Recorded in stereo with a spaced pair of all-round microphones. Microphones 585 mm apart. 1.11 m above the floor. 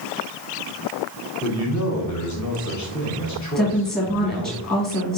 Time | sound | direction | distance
1.4 | a man speaking | 30° left (ahead or behind) | 1.3 m
3.5 | a woman speaking | 15° left (ahead or behind) | 1.8 m